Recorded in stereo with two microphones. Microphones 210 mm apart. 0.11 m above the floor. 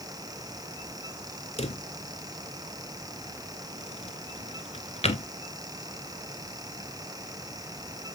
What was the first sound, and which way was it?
A drawer, 30° left (ahead or behind).